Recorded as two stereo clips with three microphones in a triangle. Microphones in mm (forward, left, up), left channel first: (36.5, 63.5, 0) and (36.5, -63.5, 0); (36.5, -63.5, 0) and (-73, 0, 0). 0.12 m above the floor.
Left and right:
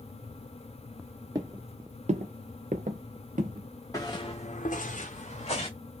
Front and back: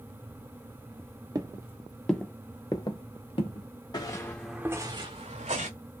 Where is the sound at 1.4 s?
150° right, 0.8 m; by 3.7 s 70° right, 1.2 m.